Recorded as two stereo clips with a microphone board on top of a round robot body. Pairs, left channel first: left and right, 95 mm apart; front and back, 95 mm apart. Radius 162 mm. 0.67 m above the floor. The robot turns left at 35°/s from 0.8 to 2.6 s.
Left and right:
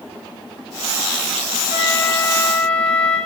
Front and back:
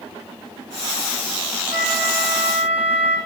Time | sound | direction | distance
1.7 | a flute | 165° right | 1.9 m